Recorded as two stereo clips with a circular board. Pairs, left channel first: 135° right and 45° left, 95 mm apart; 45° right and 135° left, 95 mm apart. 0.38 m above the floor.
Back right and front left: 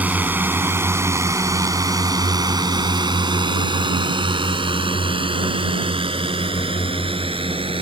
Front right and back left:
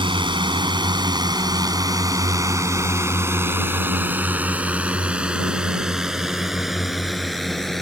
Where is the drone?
115° left; by 7.8 s 45° left.